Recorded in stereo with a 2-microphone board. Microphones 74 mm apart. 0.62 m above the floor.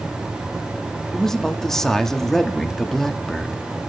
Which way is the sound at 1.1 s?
5° left (ahead or behind).